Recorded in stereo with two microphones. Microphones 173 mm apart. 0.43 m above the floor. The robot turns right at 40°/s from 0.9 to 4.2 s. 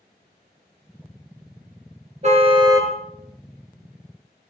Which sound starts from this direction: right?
A car horn, at 2.2 s.